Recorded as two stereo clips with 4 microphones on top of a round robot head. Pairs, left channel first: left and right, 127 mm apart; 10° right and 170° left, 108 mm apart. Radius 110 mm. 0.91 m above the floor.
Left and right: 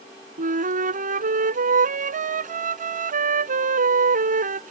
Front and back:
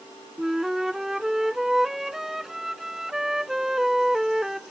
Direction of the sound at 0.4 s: 105° right.